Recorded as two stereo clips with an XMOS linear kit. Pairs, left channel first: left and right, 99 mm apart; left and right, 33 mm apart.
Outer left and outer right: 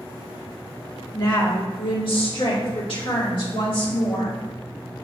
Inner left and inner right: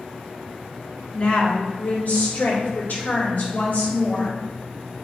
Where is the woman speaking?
40° left (ahead or behind), 1.0 m; by 4.4 s 70° left (ahead or behind), 2.5 m.